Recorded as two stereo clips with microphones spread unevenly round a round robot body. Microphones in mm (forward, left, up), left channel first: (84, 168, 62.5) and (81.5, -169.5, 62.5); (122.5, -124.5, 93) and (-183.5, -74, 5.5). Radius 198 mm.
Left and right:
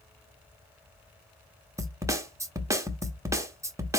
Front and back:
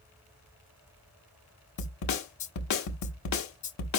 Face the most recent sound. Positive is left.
turn(degrees=-15)